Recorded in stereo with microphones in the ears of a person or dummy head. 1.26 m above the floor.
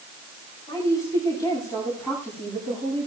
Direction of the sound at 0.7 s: 25° left (ahead or behind).